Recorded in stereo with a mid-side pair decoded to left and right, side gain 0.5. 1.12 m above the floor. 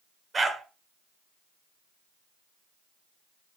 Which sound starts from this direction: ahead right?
A dog barking, at 0.3 s.